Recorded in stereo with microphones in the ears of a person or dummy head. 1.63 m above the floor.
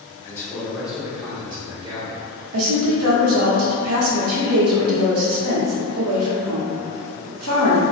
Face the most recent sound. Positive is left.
turn(degrees=-85)